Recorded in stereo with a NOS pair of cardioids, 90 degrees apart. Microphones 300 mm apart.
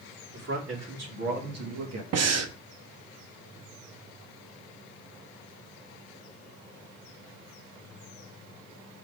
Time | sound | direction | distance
0.3 | a man speaking | 60° right | 3 m
2.1 | breathing | 55° right | 0.9 m